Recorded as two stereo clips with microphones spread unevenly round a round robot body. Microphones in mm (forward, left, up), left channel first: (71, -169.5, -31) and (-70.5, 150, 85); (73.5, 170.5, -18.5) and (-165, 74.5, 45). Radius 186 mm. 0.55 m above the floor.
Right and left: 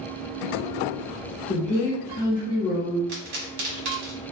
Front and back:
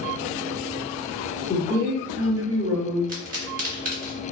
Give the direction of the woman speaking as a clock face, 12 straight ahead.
1 o'clock.